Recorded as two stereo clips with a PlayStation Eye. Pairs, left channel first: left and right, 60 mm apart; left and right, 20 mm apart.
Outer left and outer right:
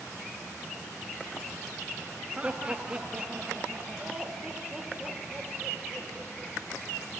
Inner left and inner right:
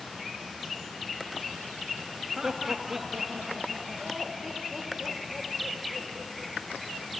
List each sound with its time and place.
2.4 s laughter: 20° right (ahead or behind), 1.9 m; by 6.5 s 5° right (ahead or behind), 6 m